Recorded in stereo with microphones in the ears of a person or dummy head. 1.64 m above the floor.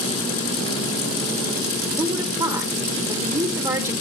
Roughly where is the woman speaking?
Right.